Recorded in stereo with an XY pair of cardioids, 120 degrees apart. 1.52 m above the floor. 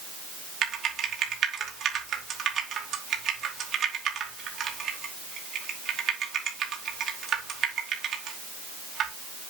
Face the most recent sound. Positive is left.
turn(degrees=-55)